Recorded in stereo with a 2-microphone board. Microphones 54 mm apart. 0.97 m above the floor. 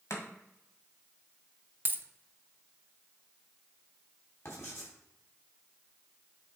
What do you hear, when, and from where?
0.1 s chopping: 70° left (ahead or behind), 1.6 m
1.9 s a dropped coin: 35° right (ahead or behind), 0.5 m
4.5 s writing: 55° left (ahead or behind), 3.5 m